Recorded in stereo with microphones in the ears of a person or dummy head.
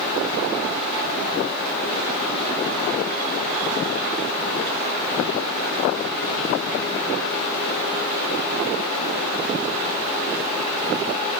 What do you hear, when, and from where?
Only background noise.